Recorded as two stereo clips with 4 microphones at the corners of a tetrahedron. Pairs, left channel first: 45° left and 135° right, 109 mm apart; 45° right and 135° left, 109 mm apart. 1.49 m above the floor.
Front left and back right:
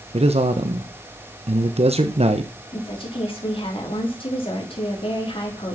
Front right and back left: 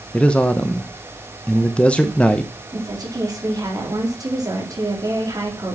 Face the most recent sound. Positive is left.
turn(degrees=80)